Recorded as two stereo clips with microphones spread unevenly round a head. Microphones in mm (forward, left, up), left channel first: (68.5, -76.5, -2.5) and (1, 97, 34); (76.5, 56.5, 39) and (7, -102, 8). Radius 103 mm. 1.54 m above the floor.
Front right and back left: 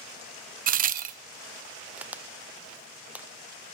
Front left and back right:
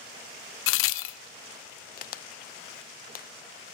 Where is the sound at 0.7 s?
60° left, 0.5 m.